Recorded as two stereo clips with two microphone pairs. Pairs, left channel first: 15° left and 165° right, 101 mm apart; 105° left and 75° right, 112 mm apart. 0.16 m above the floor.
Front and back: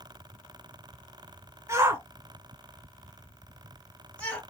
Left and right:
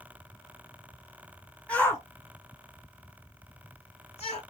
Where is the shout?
175° left, 1.5 m; by 4.4 s 90° left, 3 m.